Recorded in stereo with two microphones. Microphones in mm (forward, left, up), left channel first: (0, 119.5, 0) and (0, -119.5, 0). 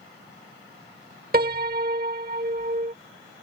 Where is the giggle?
I don't hear a giggle.